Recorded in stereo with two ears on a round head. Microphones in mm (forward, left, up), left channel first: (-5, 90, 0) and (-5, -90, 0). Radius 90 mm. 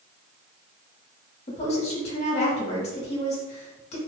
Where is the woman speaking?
35° left (ahead or behind), 1.4 m.